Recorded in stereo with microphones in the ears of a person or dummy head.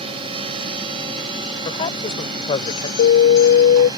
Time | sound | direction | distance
0.0 | a drone | 35° right (ahead or behind) | ?
1.6 | a man speaking | 35° left (ahead or behind) | ?
3.0 | an alarm | 65° left (ahead or behind) | ?